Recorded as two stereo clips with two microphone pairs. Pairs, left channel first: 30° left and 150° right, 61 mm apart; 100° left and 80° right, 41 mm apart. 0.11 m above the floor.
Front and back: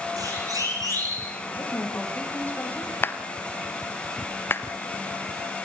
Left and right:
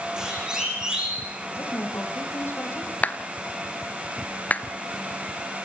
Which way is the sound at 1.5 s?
90° left.